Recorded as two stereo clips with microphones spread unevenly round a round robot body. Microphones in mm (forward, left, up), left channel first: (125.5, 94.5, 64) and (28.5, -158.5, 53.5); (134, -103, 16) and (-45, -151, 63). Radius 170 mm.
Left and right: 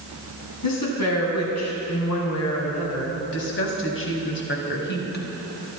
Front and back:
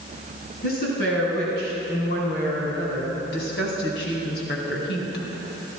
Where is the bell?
No bell in this recording.